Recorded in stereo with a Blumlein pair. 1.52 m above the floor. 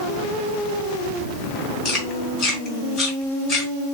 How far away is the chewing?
About 2.5 m.